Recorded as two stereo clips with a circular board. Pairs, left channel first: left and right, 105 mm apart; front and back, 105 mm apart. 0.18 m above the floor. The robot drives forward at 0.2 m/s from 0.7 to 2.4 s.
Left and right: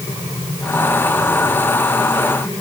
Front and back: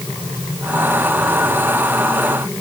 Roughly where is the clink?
No clink in this recording.